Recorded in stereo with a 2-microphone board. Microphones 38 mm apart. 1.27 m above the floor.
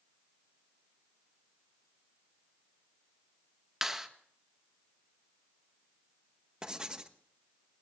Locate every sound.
3.8 s a clap: 10° right (ahead or behind), 1.4 m
6.6 s writing: 20° right (ahead or behind), 1.2 m